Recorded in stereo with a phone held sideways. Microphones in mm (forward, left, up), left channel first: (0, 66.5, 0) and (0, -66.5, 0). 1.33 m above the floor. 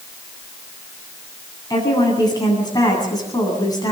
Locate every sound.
1.7 s a woman speaking: 30° left (ahead or behind), 8.5 m